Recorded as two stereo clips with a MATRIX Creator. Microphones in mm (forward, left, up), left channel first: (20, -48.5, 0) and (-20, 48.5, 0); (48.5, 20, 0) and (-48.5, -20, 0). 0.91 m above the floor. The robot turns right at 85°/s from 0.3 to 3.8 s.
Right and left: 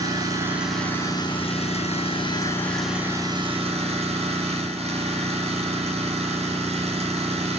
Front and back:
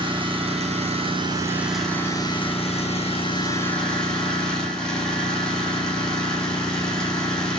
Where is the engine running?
165° left, 4.5 m; by 7.6 s 105° left, 4.5 m.